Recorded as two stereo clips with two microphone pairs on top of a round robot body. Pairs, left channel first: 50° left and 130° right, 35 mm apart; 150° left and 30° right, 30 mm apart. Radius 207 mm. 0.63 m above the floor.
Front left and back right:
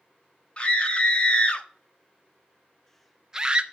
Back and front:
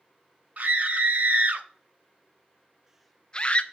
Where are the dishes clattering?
I don't hear dishes clattering.